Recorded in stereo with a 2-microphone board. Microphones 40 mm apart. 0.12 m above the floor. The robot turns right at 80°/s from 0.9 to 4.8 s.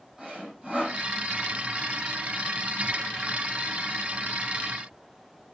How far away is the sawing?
About 4.5 m.